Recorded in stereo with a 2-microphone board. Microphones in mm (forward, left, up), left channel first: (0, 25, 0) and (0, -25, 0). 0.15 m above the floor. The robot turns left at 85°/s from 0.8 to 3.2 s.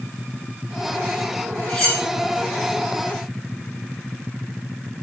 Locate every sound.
1.7 s cutlery clinking: 20° left (ahead or behind), 2.5 m; by 2.0 s 10° right (ahead or behind), 2.5 m